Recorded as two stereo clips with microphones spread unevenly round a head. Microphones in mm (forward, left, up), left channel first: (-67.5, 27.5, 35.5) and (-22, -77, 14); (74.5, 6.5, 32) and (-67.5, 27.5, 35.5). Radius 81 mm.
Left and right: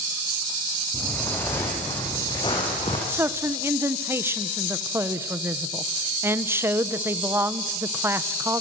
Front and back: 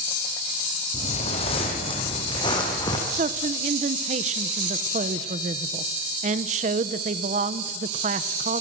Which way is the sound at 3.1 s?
140° right.